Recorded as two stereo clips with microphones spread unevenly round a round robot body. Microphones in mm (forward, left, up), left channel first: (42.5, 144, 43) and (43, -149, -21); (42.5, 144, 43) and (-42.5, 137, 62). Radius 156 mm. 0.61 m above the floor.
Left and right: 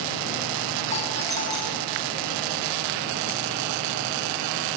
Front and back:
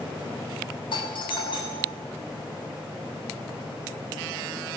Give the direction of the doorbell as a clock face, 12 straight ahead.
11 o'clock.